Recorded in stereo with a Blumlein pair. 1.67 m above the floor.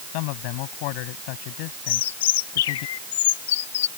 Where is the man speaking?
45° left.